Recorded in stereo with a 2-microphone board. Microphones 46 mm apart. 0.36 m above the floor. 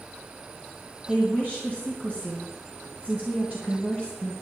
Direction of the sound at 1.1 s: 35° right (ahead or behind).